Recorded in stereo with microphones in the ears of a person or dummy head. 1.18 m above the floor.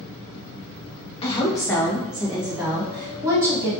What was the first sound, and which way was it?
A woman speaking, 30° left (ahead or behind).